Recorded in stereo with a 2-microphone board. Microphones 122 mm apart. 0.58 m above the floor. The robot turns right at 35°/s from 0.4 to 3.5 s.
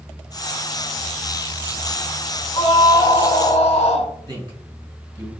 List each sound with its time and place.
2.5 s a scream: 35° left, 2 m; by 4.1 s 65° left, 2 m
4.3 s a man speaking: 30° right (ahead or behind), 5.5 m